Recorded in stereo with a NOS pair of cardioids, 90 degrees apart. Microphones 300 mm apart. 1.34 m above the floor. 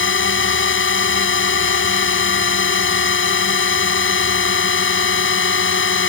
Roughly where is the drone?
Ahead left.